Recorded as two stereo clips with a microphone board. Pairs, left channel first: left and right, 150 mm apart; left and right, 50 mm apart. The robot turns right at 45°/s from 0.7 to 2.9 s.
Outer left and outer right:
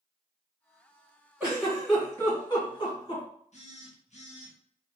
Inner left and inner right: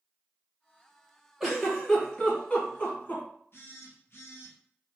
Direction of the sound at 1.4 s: 10° right (ahead or behind).